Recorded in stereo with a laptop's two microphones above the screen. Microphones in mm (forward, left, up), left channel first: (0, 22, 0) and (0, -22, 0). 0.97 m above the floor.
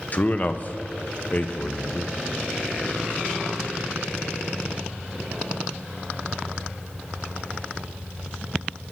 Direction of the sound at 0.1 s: 40° left (ahead or behind).